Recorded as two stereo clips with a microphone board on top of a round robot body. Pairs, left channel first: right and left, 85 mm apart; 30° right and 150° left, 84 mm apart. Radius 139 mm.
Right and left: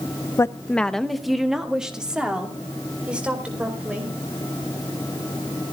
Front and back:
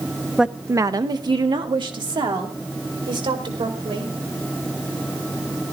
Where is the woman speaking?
125° right, 0.6 m; by 4.1 s 165° left, 4.5 m.